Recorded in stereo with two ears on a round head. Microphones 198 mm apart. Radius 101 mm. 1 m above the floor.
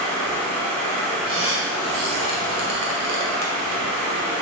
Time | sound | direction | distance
0.0 | running water | 85° right | 2.5 m
1.3 | a squeak | 70° right (ahead or behind) | 2.0 m